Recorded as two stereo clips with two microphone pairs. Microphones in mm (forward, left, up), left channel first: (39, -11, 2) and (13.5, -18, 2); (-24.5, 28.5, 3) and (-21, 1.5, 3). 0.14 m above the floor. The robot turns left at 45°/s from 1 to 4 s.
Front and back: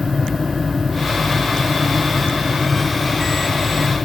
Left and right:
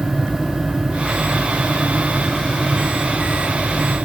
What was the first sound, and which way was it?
Only background noise.